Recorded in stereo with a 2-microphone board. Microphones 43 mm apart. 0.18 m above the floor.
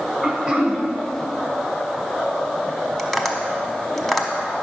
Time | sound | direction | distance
0.2 | throat clearing | 10° right (ahead or behind) | 1.1 m
3.0 | tapping | 5° left (ahead or behind) | 0.8 m